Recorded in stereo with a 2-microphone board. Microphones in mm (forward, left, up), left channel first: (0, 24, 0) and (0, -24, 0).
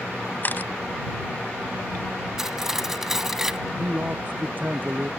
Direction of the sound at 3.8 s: 35° right (ahead or behind).